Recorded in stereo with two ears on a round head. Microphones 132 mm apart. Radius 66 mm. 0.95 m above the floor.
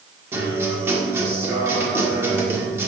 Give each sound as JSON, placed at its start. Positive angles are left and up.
{"t": 0.3, "sound": "a guitar", "side_deg": -15, "distance_m": 1.6}